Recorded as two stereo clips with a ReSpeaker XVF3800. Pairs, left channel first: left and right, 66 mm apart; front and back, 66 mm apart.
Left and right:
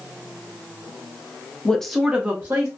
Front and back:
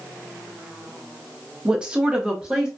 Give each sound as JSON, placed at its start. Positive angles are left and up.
{"t": 1.6, "sound": "a woman speaking", "azimuth_deg": 130, "distance_m": 0.5}